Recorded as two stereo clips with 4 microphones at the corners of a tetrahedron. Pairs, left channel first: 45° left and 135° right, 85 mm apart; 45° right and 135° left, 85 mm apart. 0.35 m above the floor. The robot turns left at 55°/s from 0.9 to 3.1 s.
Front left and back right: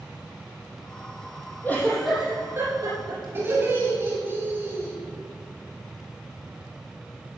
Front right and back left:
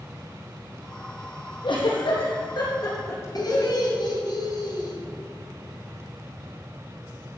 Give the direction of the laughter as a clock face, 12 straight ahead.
2 o'clock.